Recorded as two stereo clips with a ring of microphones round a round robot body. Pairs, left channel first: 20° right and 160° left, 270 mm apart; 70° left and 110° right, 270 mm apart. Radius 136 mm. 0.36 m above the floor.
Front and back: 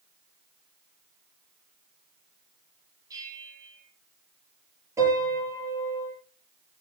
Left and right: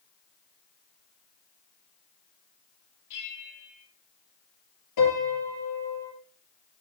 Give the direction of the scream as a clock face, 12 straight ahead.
No scream in this recording.